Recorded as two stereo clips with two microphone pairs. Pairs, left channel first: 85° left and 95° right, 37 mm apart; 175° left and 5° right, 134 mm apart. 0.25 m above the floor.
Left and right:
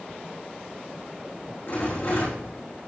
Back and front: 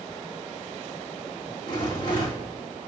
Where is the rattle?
125° left, 4.5 m.